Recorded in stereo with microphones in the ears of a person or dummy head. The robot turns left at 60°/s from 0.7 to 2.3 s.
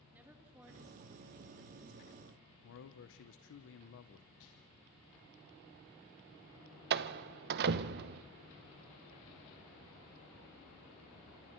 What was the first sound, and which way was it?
A woman speaking, 10° right.